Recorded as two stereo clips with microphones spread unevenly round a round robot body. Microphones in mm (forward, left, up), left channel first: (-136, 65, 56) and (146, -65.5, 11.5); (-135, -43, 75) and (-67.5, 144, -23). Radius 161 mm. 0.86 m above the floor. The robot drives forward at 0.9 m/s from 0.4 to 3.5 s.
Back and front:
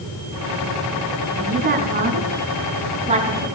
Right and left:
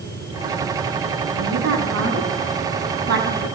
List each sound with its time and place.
1.4 s a woman speaking: 35° left, 8.5 m; by 3.5 s 45° left, 7 m